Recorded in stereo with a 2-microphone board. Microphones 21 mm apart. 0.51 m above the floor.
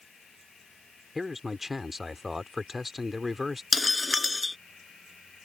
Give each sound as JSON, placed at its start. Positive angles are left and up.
{"t": 1.1, "sound": "a man speaking", "side_deg": -10}
{"t": 3.7, "sound": "breaking glass", "side_deg": 0}